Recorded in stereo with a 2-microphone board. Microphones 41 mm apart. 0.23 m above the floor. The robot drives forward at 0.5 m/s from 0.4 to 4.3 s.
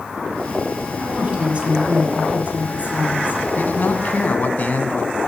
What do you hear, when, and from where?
1.0 s a woman speaking: 30° right (ahead or behind), 5.5 m; by 3.4 s 40° right (ahead or behind), 4.5 m
3.6 s a man speaking: 50° left (ahead or behind), 1.4 m